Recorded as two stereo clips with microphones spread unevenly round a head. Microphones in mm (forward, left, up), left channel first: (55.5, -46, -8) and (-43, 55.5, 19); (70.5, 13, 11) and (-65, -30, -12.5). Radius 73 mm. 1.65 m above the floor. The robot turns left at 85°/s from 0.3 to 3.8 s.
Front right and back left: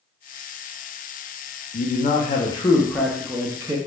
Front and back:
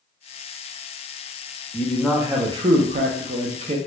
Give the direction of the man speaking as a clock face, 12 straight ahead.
1 o'clock.